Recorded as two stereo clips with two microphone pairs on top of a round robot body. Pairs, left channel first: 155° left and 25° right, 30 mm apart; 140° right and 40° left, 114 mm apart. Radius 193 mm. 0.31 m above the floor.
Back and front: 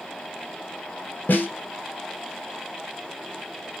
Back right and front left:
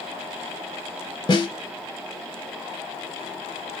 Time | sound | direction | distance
1.3 | a snare drum | 170° left | 0.7 m